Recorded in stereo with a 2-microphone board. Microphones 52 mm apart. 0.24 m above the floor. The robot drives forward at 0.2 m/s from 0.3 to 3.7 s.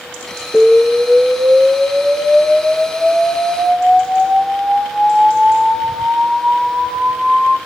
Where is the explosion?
10° left (ahead or behind), 3 m.